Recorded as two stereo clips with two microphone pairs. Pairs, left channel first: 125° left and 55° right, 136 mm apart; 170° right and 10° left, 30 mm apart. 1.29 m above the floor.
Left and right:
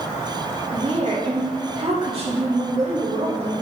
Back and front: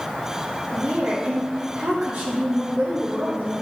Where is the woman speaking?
15° right, 2 m.